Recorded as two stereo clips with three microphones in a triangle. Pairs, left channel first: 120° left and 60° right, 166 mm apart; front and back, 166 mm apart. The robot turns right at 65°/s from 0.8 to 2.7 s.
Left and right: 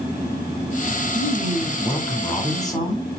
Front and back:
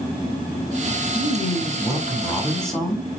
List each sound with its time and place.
1.1 s a man speaking: 15° right, 1.1 m; by 3.1 s 85° left, 1.1 m